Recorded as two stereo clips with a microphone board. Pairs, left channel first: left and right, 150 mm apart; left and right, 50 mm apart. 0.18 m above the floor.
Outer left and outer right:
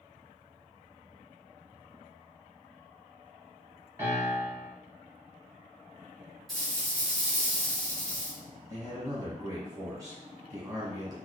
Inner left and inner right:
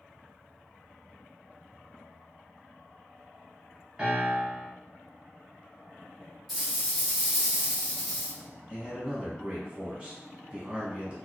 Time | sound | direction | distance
4.0 | a piano | 15° right (ahead or behind) | 1.2 m
6.5 | a rattle | centre (ahead or behind) | 1.5 m
8.7 | a man speaking | 20° right (ahead or behind) | 1.1 m